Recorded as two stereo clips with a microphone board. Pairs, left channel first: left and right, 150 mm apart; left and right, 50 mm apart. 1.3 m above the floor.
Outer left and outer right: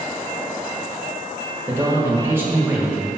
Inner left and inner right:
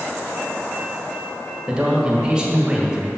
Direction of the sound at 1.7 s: 15° right (ahead or behind).